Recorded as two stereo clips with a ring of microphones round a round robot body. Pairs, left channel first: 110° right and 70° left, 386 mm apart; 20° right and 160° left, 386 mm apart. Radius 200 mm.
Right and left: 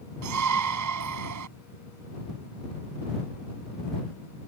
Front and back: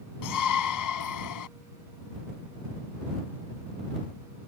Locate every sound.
0.2 s a shout: 20° left